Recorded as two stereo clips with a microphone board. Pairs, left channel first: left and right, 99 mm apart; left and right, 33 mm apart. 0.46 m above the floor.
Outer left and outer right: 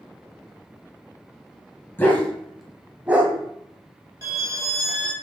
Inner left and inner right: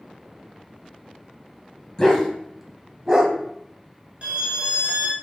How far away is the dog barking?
About 1.0 m.